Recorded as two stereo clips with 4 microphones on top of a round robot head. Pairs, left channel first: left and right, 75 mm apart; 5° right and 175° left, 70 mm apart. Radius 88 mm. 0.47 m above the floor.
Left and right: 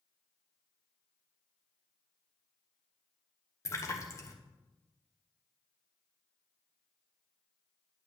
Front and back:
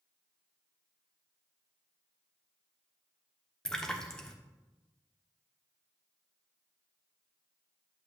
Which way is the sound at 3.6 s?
75° left.